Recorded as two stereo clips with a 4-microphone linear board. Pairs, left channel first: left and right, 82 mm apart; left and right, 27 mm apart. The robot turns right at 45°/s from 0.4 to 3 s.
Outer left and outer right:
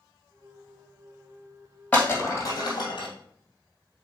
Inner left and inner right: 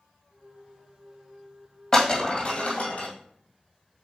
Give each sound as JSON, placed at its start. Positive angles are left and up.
{"t": 1.9, "sound": "breaking glass", "side_deg": 15, "distance_m": 2.5}